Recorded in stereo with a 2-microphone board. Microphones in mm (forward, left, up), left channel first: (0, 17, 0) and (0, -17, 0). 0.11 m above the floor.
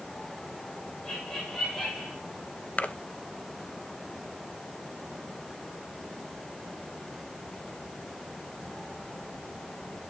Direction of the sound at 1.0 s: 15° left (ahead or behind).